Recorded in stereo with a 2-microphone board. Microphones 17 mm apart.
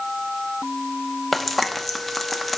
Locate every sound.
1.3 s frying: centre (ahead or behind), 0.8 m